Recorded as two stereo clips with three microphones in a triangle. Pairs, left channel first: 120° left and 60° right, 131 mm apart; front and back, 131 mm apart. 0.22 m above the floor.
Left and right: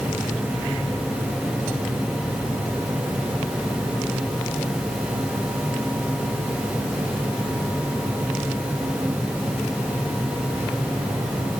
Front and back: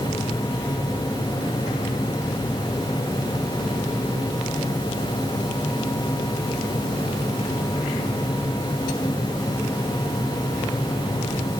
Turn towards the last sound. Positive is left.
No sound to turn to.